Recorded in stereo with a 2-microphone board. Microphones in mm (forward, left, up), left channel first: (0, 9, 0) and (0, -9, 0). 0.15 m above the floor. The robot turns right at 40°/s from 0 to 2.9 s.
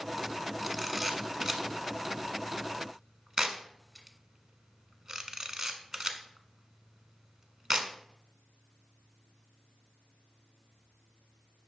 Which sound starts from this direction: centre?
A camera shutter, at 0.6 s.